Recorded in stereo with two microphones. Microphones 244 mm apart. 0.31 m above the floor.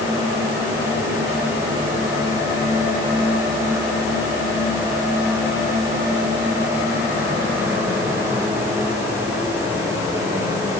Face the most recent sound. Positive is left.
No sound to turn to.